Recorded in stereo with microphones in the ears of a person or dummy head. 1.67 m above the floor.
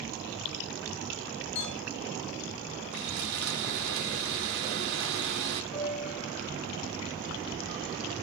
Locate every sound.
1.6 s a clink: 60° left (ahead or behind), 4 m
2.9 s sawing: 70° right (ahead or behind), 2.5 m
5.7 s a piano: 5° right (ahead or behind), 4.5 m